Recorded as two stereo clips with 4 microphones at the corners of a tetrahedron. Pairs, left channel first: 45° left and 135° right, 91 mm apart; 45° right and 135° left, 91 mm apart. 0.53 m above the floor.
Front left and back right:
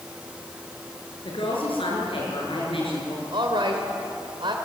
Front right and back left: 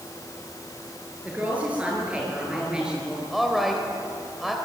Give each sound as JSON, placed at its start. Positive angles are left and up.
{"t": 1.2, "sound": "a woman speaking", "azimuth_deg": 60, "distance_m": 7.0}
{"t": 3.3, "sound": "a woman speaking", "azimuth_deg": -140, "distance_m": 2.5}